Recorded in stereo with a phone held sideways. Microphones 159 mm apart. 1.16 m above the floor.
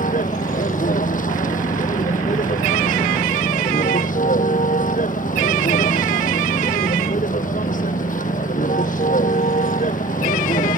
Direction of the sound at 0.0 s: 55° left (ahead or behind).